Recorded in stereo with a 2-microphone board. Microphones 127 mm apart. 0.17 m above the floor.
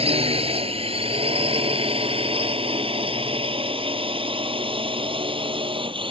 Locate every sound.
0.0 s a drone: 50° right (ahead or behind); by 6.1 s 45° right (ahead or behind)